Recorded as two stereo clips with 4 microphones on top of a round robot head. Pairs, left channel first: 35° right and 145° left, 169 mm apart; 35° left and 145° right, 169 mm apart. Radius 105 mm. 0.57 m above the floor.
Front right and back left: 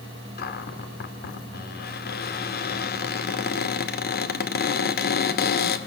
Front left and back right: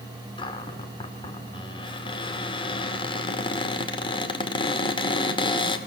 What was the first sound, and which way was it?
A cupboard door, 25° right.